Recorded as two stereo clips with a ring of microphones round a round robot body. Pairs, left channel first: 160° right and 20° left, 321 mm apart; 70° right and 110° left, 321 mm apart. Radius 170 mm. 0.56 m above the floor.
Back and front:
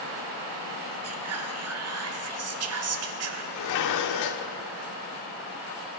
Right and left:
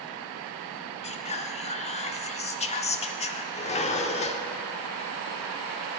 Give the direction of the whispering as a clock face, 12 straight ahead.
12 o'clock.